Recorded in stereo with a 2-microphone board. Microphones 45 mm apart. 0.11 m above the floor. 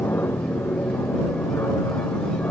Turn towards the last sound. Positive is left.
turn(degrees=60)  # may be behind; listen again after turning